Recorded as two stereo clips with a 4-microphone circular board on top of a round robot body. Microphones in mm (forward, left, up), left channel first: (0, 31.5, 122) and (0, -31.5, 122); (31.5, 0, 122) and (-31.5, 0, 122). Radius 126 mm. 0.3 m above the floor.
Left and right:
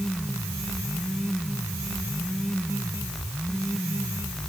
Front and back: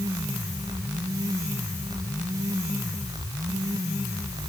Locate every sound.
Only background noise.